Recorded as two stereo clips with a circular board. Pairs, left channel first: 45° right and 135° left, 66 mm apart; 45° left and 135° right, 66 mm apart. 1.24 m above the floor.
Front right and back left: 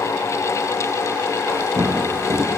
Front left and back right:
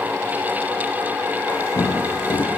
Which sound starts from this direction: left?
Footsteps, at 1.5 s.